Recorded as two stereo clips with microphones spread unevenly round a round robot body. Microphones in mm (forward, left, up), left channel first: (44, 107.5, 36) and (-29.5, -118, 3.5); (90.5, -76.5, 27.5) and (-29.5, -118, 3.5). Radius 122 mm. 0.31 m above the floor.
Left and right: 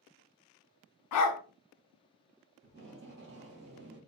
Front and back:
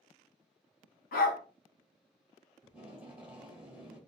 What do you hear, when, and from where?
1.1 s a dog barking: 50° left, 0.7 m
2.6 s tape being pulled: 95° right, 2 m